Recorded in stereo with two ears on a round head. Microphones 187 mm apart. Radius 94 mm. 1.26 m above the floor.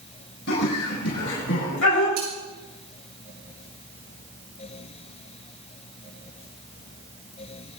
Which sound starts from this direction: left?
Laughter, at 0.5 s.